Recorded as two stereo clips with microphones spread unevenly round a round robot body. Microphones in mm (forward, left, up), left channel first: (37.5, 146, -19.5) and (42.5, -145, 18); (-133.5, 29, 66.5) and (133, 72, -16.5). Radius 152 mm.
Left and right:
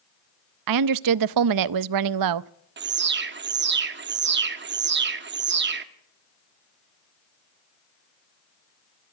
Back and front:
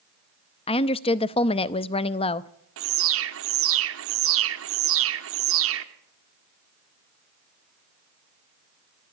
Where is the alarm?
35° right, 1.3 m.